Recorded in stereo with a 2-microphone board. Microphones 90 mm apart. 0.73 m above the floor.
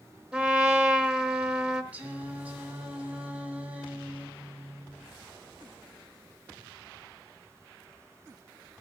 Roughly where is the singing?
Centre.